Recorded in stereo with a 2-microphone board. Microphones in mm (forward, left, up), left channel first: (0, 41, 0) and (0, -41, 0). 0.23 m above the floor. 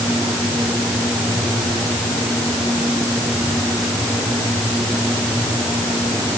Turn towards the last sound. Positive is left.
No sound to turn to.